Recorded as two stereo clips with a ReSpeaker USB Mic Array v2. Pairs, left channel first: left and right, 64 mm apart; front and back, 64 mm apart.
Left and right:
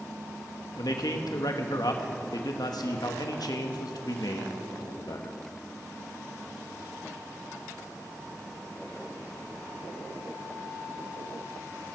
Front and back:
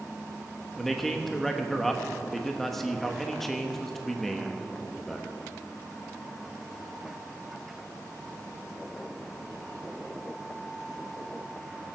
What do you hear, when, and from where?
0.8 s a man speaking: 85° left, 1.2 m